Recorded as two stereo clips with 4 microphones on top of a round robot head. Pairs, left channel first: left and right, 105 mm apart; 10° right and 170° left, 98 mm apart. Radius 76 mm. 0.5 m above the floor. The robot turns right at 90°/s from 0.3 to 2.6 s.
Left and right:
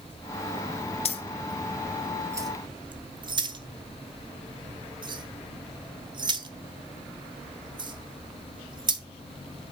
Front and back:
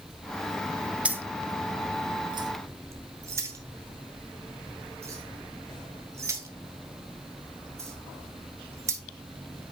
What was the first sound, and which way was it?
Keys jangling, 90° left.